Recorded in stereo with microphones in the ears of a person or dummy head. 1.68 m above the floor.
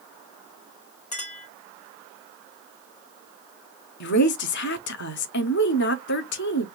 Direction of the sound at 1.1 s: 35° left (ahead or behind).